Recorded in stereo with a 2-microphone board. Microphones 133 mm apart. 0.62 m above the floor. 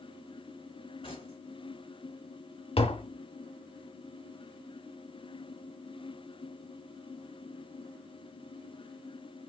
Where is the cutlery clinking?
40° left (ahead or behind), 1.9 m.